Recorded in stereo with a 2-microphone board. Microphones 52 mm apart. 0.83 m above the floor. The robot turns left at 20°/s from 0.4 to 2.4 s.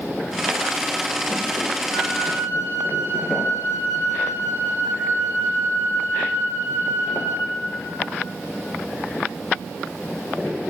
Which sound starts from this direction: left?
A flute, at 1.9 s.